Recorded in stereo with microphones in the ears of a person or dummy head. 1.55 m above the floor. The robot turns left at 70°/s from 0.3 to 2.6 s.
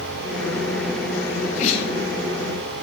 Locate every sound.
1.3 s a sneeze: 65° left (ahead or behind), 1.5 m; by 1.9 s 25° left (ahead or behind), 1.5 m